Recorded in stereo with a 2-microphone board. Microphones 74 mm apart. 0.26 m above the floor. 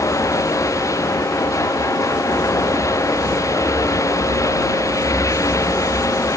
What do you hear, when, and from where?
0.0 s running water: 45° left (ahead or behind)